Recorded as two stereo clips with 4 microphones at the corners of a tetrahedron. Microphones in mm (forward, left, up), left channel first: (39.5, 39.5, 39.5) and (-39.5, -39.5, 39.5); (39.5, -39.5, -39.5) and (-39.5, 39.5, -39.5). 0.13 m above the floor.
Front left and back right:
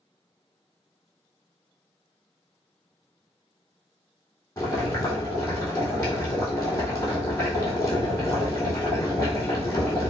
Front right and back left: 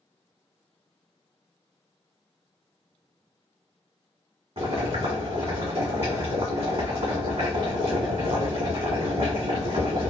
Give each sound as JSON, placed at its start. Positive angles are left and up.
{"t": 4.6, "sound": "boiling", "azimuth_deg": 105, "distance_m": 1.3}